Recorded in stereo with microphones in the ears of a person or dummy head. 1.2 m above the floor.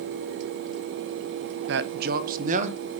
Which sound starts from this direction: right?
A man speaking, at 1.7 s.